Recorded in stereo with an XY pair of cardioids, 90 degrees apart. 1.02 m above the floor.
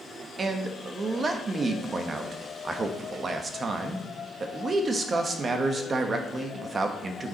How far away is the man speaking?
About 1.2 m.